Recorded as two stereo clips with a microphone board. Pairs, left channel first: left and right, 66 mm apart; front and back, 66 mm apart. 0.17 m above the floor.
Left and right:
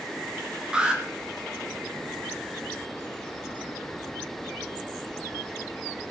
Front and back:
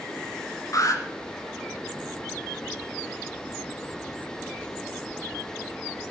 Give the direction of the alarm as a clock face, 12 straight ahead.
12 o'clock.